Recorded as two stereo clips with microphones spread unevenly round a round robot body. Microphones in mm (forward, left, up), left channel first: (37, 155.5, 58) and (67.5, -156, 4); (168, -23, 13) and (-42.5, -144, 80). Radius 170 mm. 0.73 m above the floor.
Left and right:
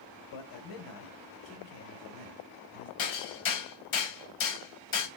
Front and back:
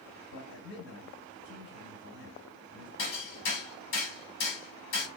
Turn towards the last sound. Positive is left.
turn(degrees=75)